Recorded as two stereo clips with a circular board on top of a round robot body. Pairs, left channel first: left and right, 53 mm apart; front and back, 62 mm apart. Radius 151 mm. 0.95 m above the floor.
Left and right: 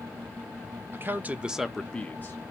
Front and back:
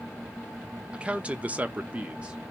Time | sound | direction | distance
0.9 | a man speaking | 115° right | 0.7 m